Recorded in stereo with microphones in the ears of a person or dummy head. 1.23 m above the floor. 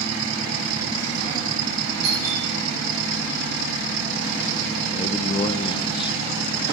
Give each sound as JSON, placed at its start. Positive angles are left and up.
{"t": 2.0, "sound": "a doorbell", "side_deg": -85, "distance_m": 5.5}
{"t": 4.9, "sound": "a man speaking", "side_deg": 30, "distance_m": 0.6}